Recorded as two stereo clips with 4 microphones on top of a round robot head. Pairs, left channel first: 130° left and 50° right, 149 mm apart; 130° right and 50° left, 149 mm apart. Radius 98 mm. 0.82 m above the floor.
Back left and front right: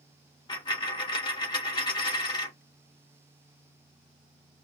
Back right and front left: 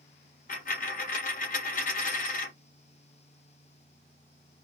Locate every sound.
0.5 s a dropped coin: 165° right, 1.4 m